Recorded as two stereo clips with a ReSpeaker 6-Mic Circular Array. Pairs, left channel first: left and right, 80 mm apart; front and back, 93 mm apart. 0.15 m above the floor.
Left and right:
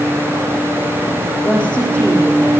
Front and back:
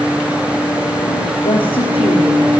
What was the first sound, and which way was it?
A woman speaking, 5° left.